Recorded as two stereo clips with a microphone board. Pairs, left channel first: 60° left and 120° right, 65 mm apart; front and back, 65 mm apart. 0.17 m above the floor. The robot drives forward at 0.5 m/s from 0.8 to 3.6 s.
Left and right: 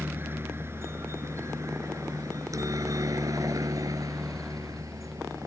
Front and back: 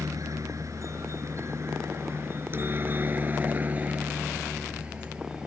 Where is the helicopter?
170° right; by 5.5 s 100° right.